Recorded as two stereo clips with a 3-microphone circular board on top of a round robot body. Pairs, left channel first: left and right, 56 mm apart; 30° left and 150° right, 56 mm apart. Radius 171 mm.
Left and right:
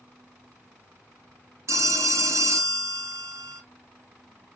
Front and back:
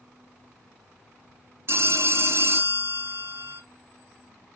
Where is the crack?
No crack in this recording.